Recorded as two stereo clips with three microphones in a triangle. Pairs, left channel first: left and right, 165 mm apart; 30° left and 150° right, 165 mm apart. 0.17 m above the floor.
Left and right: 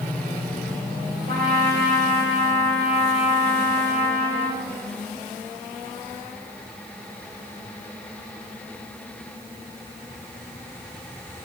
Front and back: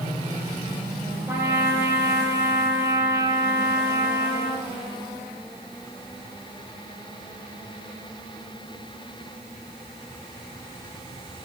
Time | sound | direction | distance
1.3 | a trumpet | 70° right | 5.5 m